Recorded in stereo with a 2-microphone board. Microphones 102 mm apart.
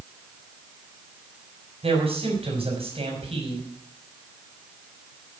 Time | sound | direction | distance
1.8 | a man speaking | 70° right (ahead or behind) | 5 m